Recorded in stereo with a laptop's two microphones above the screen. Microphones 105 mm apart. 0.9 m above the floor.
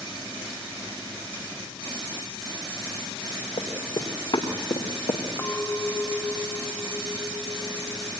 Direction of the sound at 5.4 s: 35° left (ahead or behind).